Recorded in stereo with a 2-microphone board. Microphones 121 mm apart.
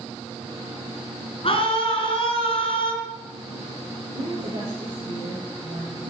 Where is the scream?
50° left (ahead or behind), 4 m.